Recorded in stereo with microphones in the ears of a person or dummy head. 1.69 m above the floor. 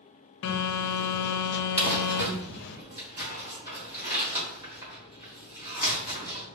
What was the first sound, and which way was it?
A phone buzzing, 65° left (ahead or behind).